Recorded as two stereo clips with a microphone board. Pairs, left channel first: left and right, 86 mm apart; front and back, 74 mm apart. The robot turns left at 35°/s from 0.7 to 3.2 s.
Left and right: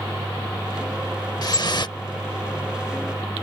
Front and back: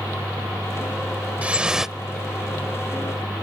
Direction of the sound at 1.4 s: 115° left.